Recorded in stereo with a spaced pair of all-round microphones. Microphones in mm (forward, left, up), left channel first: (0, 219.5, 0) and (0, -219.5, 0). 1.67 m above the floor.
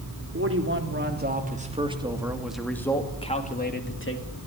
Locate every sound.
0.3 s a man speaking: 30° right (ahead or behind), 3.5 m; by 4.3 s 30° left (ahead or behind), 2.5 m